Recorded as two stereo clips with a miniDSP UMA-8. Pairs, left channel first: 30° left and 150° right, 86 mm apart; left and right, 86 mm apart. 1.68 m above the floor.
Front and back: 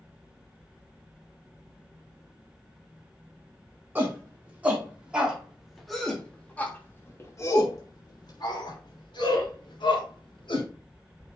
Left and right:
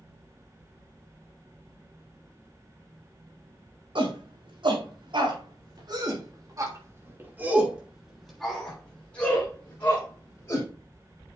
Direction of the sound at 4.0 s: 85° right.